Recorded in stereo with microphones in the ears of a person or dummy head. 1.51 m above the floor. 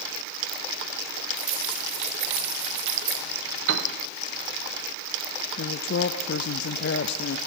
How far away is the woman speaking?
About 0.5 m.